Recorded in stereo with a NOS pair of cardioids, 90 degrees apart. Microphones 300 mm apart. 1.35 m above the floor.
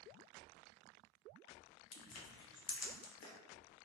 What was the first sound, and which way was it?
Crushing, 55° left.